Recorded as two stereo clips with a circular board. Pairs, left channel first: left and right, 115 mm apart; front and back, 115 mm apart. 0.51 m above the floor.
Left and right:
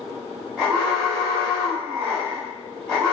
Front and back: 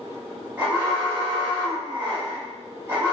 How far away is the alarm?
About 1.5 m.